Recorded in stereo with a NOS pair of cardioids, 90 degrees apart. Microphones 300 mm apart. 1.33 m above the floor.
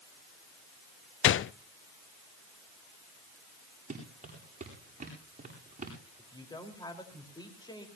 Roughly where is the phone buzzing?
No phone buzzing in this recording.